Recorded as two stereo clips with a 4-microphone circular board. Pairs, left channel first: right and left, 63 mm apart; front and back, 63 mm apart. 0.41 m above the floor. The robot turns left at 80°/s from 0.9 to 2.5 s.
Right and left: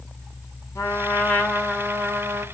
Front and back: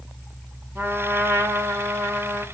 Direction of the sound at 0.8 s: 125° right.